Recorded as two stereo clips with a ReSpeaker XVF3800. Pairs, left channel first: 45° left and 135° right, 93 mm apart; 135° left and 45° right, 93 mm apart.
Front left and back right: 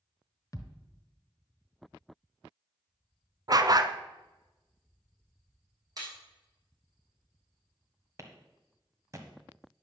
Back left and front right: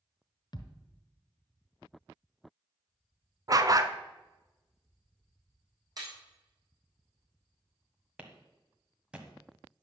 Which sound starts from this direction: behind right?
A clap, at 8.2 s.